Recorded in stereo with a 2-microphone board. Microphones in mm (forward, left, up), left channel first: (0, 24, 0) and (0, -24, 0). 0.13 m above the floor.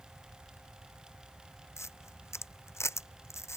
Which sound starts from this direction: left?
A camera shutter, at 1.8 s.